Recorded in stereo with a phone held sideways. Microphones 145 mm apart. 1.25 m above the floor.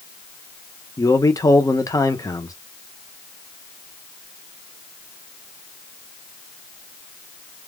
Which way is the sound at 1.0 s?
25° left (ahead or behind).